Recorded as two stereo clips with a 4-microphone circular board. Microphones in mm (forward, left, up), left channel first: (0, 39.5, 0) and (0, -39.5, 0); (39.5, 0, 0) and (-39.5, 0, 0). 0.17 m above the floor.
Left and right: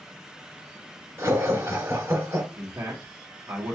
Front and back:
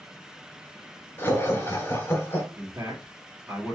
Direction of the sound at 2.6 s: 125° right.